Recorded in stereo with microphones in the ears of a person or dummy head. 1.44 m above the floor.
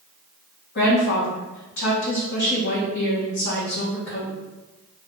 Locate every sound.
0.8 s a woman speaking: 60° left (ahead or behind), 1.6 m